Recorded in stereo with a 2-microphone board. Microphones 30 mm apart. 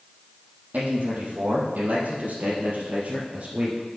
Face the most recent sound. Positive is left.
turn(degrees=-40)  # may be behind; listen again after turning